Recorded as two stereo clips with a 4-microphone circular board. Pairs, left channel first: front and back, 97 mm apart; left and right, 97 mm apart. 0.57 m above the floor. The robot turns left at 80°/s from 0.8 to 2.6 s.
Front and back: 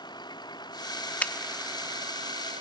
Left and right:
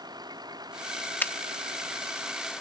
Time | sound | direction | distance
0.0 | a vehicle | 45° right | ?
1.2 | a finger snap | 50° left | ?